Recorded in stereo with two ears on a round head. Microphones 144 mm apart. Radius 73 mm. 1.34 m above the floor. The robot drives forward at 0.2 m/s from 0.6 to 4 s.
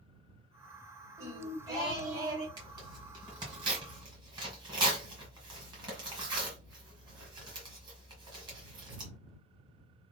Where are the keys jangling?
I don't hear keys jangling.